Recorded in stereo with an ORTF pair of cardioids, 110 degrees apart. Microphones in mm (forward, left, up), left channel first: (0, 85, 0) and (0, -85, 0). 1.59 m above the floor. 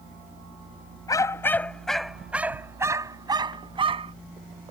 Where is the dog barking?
20° left; by 4.1 s 35° right.